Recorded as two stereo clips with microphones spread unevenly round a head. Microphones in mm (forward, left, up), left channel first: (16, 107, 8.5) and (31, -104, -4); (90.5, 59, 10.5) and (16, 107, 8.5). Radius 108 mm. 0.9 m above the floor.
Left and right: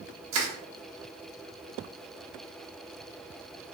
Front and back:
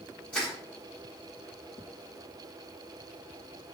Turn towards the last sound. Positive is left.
turn(degrees=-120)